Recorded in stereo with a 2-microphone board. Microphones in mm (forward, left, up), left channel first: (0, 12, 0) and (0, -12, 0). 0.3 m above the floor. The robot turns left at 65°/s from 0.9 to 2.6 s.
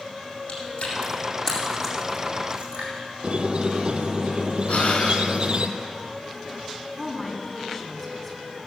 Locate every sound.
0.5 s chewing: 60° left (ahead or behind), 4.5 m; by 2.9 s 50° right (ahead or behind), 4.5 m
3.2 s a squeak: 45° right (ahead or behind), 0.9 m
4.7 s breathing: 65° left (ahead or behind), 1.7 m
7.0 s a woman speaking: 10° left (ahead or behind), 2 m